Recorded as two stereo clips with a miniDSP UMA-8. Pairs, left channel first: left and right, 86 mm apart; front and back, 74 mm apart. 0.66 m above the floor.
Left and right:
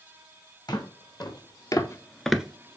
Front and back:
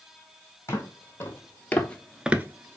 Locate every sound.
0.7 s footsteps: 55° left, 2 m; by 2.8 s 140° right, 0.9 m